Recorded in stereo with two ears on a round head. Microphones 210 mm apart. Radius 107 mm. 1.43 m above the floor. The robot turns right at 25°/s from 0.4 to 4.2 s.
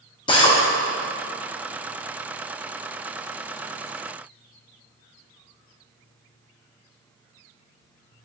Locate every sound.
0.3 s a drill: 20° left (ahead or behind), 1.0 m; by 0.6 s 25° left (ahead or behind), 1.0 m